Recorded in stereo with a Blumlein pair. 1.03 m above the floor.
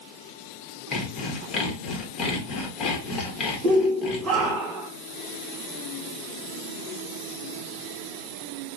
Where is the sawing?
25° left, 0.9 m.